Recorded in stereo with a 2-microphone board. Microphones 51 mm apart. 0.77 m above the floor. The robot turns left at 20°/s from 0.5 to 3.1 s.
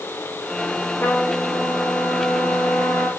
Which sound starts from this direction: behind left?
A trumpet, at 1.0 s.